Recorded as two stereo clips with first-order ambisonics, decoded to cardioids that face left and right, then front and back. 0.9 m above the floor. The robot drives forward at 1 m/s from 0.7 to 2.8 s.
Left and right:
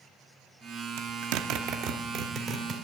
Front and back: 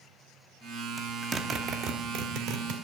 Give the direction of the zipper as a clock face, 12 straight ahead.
3 o'clock.